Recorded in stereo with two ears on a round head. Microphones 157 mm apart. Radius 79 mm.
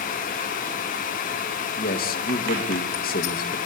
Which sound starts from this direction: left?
A man speaking, at 1.8 s.